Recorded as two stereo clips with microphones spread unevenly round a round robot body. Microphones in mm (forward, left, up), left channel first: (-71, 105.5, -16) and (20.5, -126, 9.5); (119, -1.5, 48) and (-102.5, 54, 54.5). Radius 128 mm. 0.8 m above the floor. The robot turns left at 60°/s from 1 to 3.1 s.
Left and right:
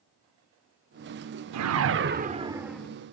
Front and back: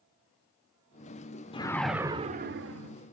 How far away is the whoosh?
About 0.9 m.